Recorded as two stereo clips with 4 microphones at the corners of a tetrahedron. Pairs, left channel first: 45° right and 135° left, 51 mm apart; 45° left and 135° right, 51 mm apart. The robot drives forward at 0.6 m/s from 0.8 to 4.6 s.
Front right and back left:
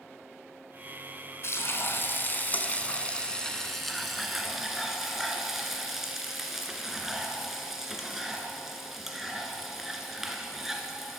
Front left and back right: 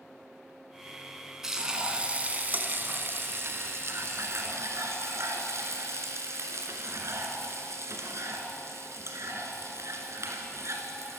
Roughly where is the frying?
Ahead right.